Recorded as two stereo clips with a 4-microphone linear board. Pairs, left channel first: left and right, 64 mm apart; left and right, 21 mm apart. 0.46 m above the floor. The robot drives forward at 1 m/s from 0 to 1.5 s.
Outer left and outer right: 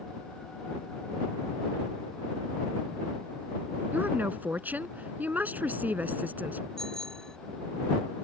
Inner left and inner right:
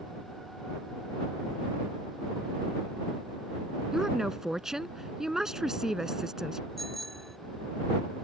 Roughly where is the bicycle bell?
Centre.